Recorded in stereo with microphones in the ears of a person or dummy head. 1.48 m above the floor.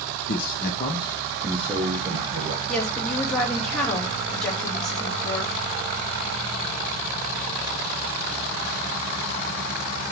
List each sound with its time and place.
0.3 s a man speaking: 65° left (ahead or behind), 1.1 m; by 2.6 s 30° right (ahead or behind), 1.8 m
2.7 s a woman speaking: 5° left (ahead or behind), 3 m